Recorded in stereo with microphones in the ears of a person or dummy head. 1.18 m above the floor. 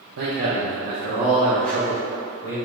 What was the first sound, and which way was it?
A man speaking, 60° right (ahead or behind).